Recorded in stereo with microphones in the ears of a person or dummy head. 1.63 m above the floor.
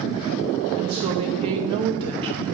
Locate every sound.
0.8 s a woman speaking: 30° right (ahead or behind), 0.7 m